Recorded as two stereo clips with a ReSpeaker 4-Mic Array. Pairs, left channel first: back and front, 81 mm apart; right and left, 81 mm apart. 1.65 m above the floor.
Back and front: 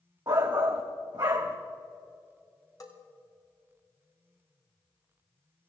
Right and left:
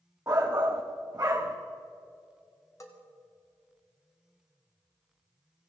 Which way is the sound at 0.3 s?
35° left.